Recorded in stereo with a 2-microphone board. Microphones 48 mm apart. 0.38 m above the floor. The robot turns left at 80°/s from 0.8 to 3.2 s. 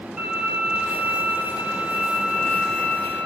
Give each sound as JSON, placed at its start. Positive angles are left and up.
{"t": 0.2, "sound": "a violin", "azimuth_deg": -10, "distance_m": 0.8}